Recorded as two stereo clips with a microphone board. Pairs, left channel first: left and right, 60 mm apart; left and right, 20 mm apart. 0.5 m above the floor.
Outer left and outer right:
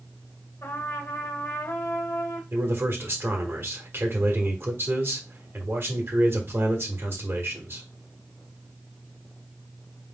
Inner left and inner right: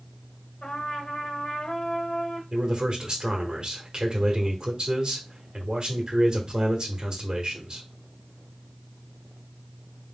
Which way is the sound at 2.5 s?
45° right (ahead or behind).